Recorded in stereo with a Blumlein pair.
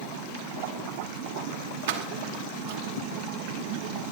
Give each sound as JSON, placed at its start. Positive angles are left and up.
{"t": 1.9, "sound": "keys jangling", "azimuth_deg": -60, "distance_m": 2.5}